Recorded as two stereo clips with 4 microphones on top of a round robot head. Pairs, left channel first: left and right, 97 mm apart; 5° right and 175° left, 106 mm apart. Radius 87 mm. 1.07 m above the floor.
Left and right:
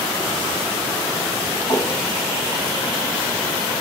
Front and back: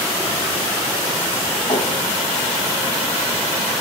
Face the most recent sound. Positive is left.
turn(degrees=45)